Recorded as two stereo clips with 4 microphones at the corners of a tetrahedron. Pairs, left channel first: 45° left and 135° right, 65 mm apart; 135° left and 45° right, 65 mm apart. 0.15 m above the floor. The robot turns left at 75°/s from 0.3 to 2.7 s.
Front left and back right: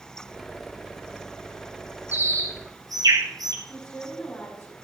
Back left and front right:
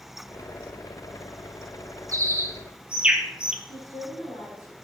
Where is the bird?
75° right, 2.5 m; by 3.5 s 120° right, 2.5 m.